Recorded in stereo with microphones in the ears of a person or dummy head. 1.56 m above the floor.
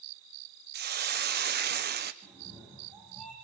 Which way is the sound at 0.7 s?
50° right (ahead or behind).